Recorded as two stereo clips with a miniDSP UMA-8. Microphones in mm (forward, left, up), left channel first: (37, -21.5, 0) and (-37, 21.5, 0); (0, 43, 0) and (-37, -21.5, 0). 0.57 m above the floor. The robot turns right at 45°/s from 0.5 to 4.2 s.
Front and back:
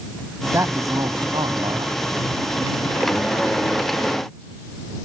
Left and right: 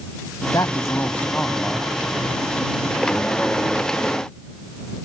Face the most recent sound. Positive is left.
turn(degrees=-100)